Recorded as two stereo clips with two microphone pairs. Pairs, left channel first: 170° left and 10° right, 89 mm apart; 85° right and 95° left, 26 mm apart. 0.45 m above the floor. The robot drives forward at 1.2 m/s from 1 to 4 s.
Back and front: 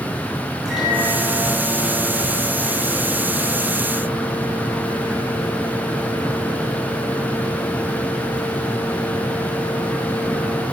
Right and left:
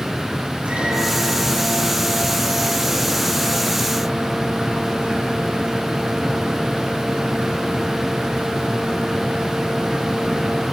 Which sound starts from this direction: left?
A microwave, at 0.7 s.